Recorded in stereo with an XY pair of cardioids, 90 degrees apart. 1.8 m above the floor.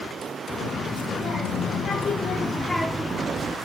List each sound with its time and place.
0.6 s a child speaking: 70° left, 3 m; by 3.6 s 50° right, 1.2 m